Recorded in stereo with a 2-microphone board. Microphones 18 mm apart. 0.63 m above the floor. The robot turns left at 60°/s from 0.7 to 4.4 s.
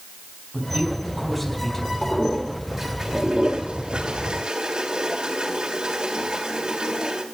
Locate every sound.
0.5 s a man speaking: 130° right, 4 m; by 1.9 s 155° left, 4 m
2.0 s a toilet flushing: 30° left (ahead or behind), 2.5 m; by 7.2 s 60° right (ahead or behind), 2.5 m